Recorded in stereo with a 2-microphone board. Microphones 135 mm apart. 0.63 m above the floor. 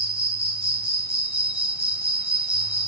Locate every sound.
0.0 s an insect: 45° right (ahead or behind), 1.2 m